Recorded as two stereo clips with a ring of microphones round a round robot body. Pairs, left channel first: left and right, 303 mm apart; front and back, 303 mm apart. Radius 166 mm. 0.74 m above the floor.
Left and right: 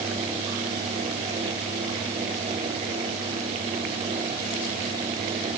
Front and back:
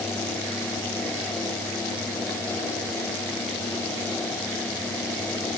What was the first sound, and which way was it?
Only background noise.